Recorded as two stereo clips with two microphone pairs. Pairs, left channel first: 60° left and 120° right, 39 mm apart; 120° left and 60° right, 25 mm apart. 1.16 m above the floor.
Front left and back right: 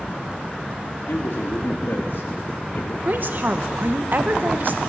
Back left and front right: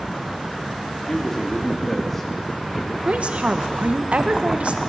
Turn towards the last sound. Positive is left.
turn(degrees=-85)